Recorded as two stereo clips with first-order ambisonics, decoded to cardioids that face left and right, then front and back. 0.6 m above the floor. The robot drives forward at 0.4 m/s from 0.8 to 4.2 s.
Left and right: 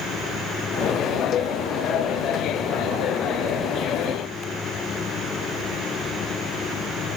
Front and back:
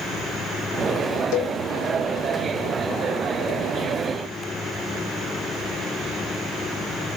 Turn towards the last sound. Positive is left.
turn(degrees=35)